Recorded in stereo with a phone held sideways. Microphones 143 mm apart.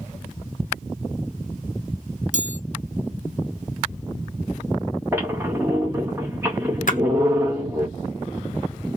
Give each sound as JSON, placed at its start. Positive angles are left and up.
{"t": 2.3, "sound": "a chime", "side_deg": -60, "distance_m": 0.5}
{"t": 5.1, "sound": "a squeak", "side_deg": -15, "distance_m": 1.3}
{"t": 6.9, "sound": "a splash", "side_deg": 65, "distance_m": 0.6}